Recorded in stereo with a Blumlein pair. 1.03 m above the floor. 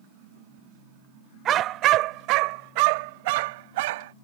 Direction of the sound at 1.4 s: 30° right.